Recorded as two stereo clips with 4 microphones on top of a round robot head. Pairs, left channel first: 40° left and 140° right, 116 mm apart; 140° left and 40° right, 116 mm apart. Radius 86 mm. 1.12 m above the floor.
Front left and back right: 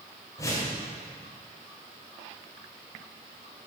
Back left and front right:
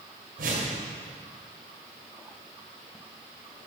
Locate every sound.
0.4 s a whoosh: 30° right, 2 m